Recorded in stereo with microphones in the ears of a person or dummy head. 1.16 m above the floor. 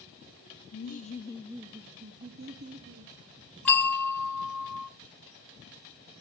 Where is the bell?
5° left (ahead or behind), 1.1 m.